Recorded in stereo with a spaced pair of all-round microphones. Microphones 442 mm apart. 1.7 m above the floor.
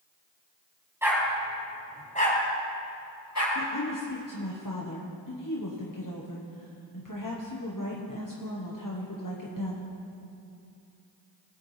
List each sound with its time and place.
1.0 s a dog barking: 5° right (ahead or behind), 3 m; by 3.5 s 40° left (ahead or behind), 3 m
3.5 s a woman speaking: 45° left (ahead or behind), 1.2 m